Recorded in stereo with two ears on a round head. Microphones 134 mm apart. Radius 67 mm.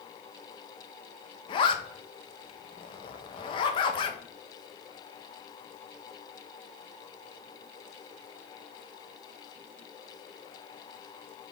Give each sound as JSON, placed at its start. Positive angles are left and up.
{"t": 1.5, "sound": "a zipper", "side_deg": 35, "distance_m": 0.6}